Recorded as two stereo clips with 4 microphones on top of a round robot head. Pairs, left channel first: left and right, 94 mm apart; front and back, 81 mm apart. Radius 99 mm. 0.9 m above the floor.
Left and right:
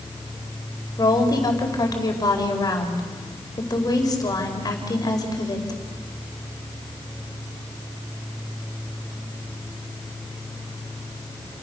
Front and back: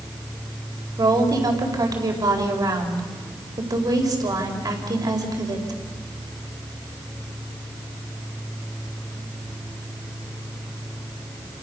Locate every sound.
1.0 s a woman speaking: 140° left, 4.5 m